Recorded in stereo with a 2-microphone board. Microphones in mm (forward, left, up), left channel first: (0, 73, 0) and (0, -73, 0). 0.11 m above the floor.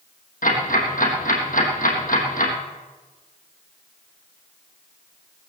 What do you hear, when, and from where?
0.4 s ticking: 70° left (ahead or behind), 3.5 m